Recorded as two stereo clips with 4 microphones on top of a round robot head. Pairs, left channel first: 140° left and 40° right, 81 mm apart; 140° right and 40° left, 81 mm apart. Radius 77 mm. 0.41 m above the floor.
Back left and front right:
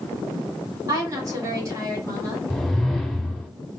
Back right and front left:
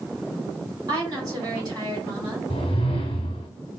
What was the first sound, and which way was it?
A woman speaking, 5° left.